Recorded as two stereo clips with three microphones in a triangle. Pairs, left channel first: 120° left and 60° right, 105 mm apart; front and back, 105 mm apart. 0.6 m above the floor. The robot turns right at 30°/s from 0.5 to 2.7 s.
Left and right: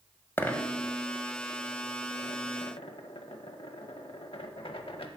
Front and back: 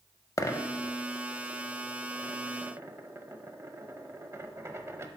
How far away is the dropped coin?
About 0.5 m.